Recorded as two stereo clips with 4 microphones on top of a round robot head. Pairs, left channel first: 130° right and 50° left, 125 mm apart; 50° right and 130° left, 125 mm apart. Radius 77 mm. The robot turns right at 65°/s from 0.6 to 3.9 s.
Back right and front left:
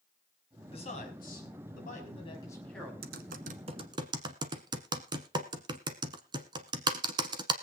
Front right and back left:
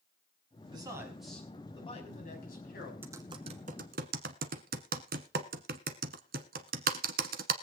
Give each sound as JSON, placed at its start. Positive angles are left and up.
{"t": 0.7, "sound": "a man speaking", "azimuth_deg": -175, "distance_m": 5.0}
{"t": 3.0, "sound": "typing on a keyboard", "azimuth_deg": 50, "distance_m": 1.1}